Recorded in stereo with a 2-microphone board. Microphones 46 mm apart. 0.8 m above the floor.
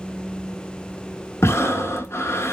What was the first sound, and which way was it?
Breathing, 75° left (ahead or behind).